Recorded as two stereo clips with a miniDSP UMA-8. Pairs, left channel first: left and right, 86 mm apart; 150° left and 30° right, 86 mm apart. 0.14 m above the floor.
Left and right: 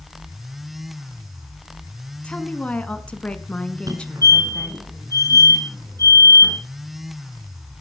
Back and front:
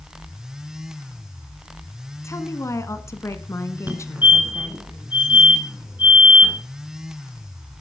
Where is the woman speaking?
155° left, 1.2 m.